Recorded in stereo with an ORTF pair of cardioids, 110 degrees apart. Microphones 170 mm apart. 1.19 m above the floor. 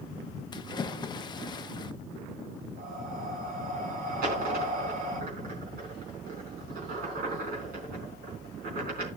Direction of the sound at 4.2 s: 60° right.